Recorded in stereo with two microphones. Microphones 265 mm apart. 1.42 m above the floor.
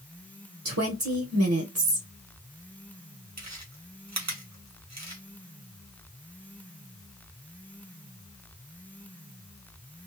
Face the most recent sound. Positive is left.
turn(degrees=-85)